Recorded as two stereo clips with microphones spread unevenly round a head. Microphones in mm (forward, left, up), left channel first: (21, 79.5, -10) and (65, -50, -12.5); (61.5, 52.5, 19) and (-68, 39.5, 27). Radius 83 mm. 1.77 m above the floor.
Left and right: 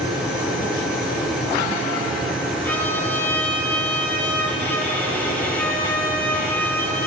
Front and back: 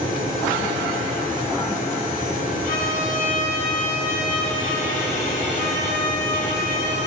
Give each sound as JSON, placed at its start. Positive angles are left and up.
{"t": 2.6, "sound": "a violin", "azimuth_deg": 35, "distance_m": 6.5}